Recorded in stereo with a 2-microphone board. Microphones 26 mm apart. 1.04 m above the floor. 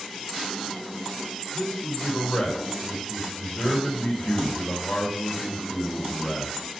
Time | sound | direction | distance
1.5 | a man speaking | 55° left (ahead or behind) | 3.5 m